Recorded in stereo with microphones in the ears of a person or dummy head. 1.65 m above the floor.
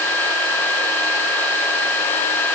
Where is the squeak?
I don't hear a squeak.